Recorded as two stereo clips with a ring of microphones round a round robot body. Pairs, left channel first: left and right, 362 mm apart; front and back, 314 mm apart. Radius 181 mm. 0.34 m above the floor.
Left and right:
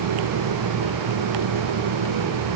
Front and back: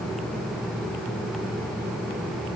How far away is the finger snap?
No finger snap in this recording.